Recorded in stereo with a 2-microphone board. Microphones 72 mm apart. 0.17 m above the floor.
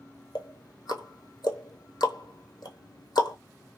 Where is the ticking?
75° left (ahead or behind), 0.7 m.